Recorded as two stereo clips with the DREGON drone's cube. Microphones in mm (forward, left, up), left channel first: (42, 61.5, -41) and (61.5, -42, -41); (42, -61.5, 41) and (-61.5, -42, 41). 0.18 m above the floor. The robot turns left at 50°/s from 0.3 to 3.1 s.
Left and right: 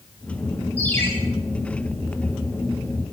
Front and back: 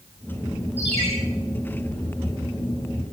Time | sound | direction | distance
0.8 | a ringtone | straight behind | 7.5 m